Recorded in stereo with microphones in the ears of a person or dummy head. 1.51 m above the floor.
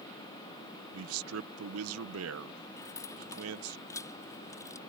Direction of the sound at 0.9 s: 85° right.